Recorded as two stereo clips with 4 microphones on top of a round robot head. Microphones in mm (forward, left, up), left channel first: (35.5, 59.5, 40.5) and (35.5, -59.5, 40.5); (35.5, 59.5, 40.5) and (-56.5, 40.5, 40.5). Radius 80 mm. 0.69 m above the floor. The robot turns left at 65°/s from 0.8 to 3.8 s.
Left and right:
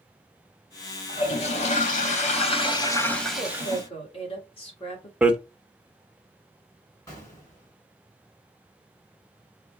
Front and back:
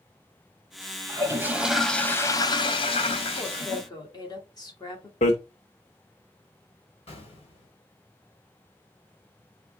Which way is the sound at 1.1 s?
145° left.